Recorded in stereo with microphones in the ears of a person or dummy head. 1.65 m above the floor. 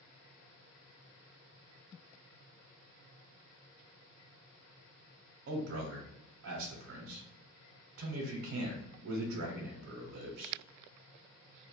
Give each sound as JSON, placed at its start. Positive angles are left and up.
{"t": 5.5, "sound": "a man speaking", "side_deg": -75, "distance_m": 0.6}